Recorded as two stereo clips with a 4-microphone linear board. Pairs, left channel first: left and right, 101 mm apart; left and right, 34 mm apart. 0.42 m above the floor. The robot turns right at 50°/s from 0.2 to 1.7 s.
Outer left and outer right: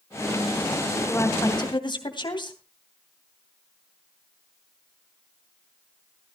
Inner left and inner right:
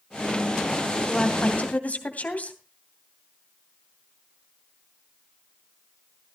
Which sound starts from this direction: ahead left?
A woman speaking, at 1.1 s.